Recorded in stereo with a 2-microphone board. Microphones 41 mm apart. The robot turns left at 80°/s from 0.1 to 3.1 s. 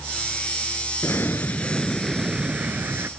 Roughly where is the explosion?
Left.